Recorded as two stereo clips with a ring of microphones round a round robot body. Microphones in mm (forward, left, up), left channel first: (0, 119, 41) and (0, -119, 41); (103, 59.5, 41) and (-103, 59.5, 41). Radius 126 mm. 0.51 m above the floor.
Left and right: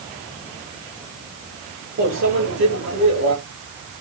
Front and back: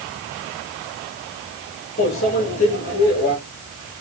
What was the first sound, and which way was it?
A microwave, 55° right.